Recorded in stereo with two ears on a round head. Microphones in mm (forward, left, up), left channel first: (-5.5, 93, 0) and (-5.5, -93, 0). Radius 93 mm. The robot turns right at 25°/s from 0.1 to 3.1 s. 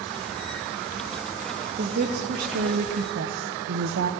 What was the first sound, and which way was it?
A woman speaking, 145° right.